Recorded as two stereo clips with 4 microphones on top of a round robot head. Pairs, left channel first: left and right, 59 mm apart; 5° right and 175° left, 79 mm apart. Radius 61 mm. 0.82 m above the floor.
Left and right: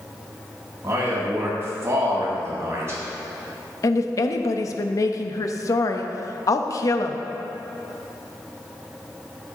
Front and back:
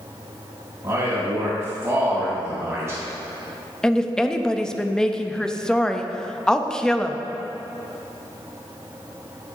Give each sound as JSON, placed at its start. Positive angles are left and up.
{"t": 0.8, "sound": "a man speaking", "azimuth_deg": -125, "distance_m": 2.5}
{"t": 3.8, "sound": "a woman speaking", "azimuth_deg": 75, "distance_m": 0.8}